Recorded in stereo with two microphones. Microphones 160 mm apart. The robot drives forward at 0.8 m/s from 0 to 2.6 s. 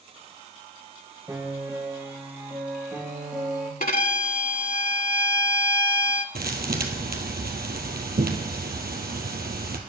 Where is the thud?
75° right (ahead or behind), 2 m.